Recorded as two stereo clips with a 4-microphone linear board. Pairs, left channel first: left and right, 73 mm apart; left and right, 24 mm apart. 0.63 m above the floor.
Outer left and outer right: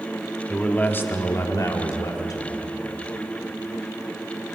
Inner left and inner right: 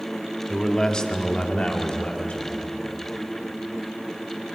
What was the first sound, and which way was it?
A man speaking, 15° left (ahead or behind).